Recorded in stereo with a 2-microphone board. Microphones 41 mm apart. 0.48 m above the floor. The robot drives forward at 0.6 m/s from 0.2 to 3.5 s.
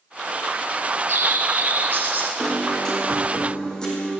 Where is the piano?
20° left (ahead or behind), 4.5 m.